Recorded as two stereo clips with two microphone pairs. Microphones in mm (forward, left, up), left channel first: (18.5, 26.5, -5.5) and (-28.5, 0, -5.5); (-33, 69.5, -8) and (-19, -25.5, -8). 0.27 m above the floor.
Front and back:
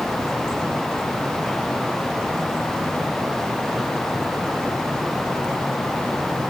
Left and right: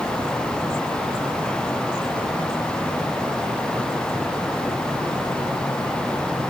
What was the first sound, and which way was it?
Only background noise.